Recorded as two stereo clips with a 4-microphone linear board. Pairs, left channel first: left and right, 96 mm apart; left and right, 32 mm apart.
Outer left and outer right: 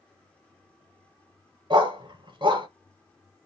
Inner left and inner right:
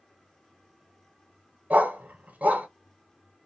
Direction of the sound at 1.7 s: 55° right (ahead or behind).